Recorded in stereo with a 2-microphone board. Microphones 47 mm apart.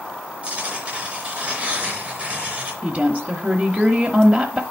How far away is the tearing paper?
About 3.5 m.